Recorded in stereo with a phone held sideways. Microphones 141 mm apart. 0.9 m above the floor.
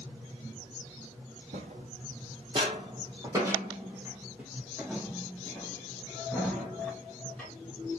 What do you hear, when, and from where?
1.5 s footsteps: 55° right (ahead or behind), 1.9 m; by 7.5 s 10° left (ahead or behind), 4.5 m